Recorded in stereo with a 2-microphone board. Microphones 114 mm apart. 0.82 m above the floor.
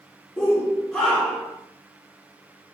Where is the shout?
30° left (ahead or behind), 2.5 m; by 1.6 s 10° left (ahead or behind), 1.8 m.